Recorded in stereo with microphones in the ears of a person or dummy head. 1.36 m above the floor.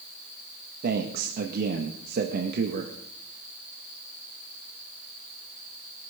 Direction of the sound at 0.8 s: 55° right (ahead or behind).